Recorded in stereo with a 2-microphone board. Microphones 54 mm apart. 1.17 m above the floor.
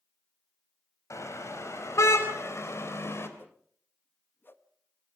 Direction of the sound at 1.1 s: 70° left (ahead or behind).